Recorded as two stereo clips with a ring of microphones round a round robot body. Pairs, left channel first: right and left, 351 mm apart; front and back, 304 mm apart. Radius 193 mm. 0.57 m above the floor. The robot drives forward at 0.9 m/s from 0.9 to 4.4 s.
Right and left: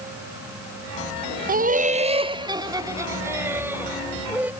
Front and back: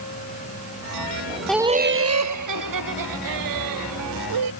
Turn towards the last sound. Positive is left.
turn(degrees=175)